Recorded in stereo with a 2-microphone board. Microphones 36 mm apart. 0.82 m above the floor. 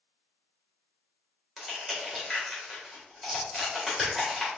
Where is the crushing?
5° right (ahead or behind), 2 m.